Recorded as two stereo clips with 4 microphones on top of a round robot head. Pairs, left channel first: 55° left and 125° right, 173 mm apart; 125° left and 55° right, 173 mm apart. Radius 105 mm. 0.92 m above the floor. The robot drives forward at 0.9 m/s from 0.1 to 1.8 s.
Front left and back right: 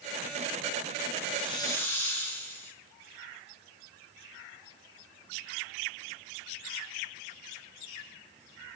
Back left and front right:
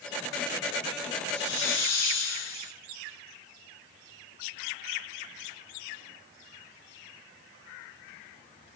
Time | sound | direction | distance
1.3 | a hiss | 100° left | 0.7 m